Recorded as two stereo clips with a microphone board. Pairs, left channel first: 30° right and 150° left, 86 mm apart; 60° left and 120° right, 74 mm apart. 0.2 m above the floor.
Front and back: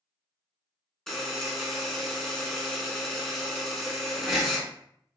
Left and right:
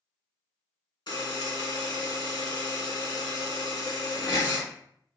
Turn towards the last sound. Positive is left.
turn(degrees=55)